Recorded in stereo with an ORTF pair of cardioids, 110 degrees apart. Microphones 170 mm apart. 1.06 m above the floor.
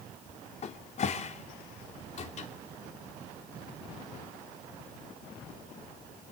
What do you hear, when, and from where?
0.6 s a cupboard door: 40° left, 2.5 m